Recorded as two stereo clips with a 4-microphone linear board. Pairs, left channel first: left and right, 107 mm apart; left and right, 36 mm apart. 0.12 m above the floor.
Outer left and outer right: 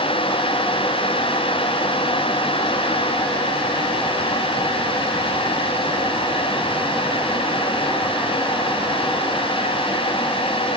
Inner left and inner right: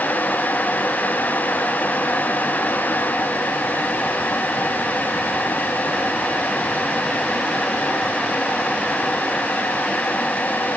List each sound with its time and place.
Only background noise.